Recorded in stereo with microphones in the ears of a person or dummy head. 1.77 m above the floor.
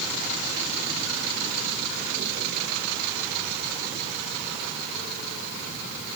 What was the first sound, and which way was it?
Only background noise.